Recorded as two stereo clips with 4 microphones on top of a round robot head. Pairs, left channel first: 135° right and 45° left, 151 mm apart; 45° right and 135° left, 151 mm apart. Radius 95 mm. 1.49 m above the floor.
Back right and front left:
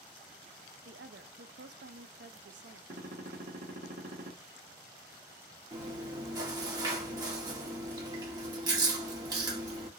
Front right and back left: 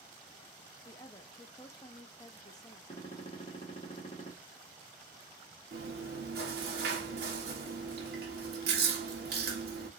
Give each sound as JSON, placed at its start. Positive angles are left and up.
{"t": 0.8, "sound": "a woman speaking", "azimuth_deg": 25, "distance_m": 0.6}
{"t": 2.9, "sound": "a gunshot", "azimuth_deg": 10, "distance_m": 1.2}
{"t": 5.7, "sound": "chewing", "azimuth_deg": 105, "distance_m": 1.4}